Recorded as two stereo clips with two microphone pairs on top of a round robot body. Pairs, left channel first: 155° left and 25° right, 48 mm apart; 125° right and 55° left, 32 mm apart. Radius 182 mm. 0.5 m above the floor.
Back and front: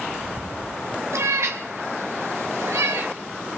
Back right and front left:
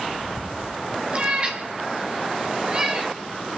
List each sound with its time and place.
1.1 s a cat meowing: straight ahead, 1.9 m; by 3.1 s 10° right, 3 m